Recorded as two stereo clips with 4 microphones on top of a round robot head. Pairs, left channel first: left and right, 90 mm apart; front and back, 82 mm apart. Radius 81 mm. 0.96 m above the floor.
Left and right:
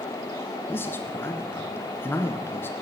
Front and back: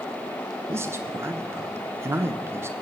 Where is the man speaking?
140° left, 1.1 m.